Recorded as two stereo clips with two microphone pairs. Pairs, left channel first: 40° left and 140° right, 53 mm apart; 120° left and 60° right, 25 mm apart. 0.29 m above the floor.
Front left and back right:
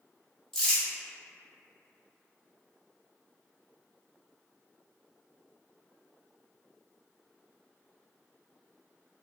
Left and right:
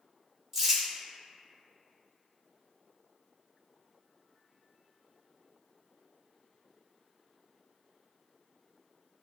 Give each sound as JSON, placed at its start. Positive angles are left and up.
{"t": 0.5, "sound": "crumpling", "azimuth_deg": -15, "distance_m": 1.2}